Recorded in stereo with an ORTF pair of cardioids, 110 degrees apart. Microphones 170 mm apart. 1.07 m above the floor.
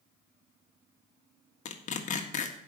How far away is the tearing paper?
About 1.6 m.